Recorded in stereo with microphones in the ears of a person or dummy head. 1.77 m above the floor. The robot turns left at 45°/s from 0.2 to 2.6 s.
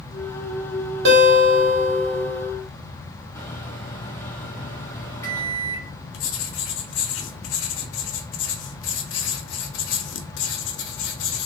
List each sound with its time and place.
1.1 s a guitar: 70° right, 1.0 m; by 2.5 s 135° right, 1.0 m
3.4 s a microwave: 15° left (ahead or behind), 0.7 m
6.1 s writing: 85° left, 0.5 m